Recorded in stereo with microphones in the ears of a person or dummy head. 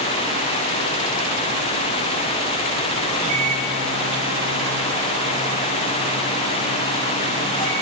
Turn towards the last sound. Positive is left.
turn(degrees=5)  # may be behind; listen again after turning